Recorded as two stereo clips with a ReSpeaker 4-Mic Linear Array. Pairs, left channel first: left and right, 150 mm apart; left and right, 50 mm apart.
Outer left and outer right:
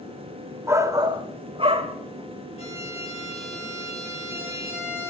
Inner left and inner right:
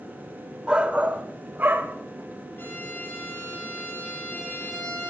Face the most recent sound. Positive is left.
turn(degrees=45)  # may be behind; listen again after turning